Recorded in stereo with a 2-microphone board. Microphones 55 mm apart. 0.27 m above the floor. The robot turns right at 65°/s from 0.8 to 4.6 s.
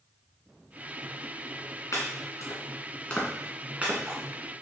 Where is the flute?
I don't hear a flute.